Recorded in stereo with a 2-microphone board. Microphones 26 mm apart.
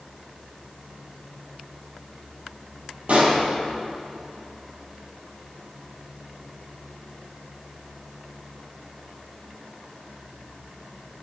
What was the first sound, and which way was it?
A pop, 55° right (ahead or behind).